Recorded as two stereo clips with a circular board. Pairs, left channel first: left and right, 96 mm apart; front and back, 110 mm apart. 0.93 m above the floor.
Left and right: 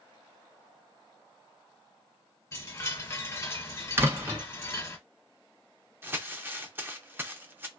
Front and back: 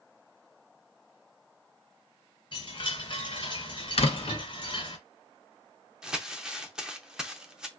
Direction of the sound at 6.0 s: 110° right.